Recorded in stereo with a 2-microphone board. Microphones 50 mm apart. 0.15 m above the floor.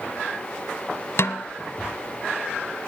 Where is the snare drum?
60° left (ahead or behind), 0.6 m.